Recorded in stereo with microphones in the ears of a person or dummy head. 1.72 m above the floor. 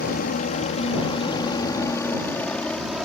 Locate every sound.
0.0 s a helicopter: 45° left (ahead or behind); by 3.1 s 5° right (ahead or behind)